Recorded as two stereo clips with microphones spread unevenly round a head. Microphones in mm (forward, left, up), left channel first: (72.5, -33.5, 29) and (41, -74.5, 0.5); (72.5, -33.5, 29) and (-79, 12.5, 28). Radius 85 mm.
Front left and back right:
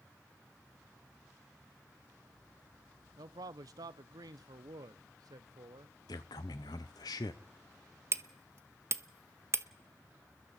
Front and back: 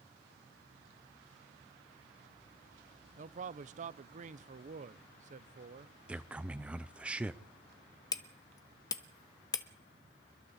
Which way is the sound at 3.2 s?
150° right.